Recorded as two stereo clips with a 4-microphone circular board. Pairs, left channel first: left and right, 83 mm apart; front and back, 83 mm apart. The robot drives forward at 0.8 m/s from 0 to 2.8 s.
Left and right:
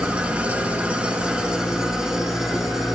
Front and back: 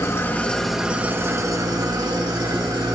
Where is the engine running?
20° right, 0.9 m; by 3.0 s 175° right, 1.9 m.